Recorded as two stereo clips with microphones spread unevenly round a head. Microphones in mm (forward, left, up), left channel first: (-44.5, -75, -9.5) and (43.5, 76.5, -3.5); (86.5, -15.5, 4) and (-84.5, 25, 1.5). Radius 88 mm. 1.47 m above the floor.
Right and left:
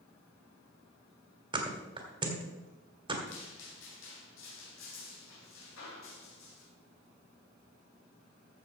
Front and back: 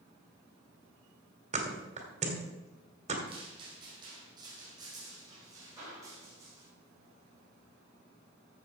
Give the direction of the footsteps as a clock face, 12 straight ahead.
4 o'clock.